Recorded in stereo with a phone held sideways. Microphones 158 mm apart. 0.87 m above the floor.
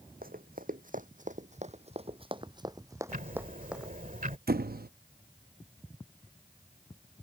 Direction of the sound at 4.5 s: 75° right (ahead or behind).